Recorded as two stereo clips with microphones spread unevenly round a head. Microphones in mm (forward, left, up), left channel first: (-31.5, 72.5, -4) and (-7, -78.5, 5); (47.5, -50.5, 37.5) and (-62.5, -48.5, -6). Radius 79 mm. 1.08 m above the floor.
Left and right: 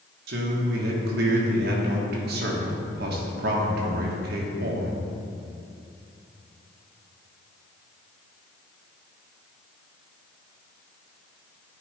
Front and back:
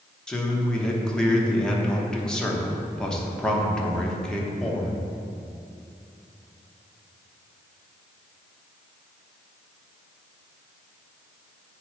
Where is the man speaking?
95° right, 1.2 m.